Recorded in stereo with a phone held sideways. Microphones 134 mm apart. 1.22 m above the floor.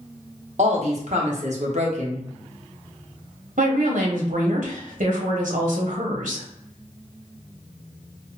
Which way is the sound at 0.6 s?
60° right (ahead or behind).